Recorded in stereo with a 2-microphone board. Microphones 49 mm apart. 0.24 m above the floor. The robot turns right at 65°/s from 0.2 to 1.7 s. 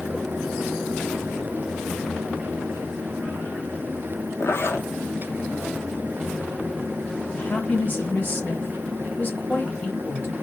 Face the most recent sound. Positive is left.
turn(degrees=35)  # may be behind; listen again after turning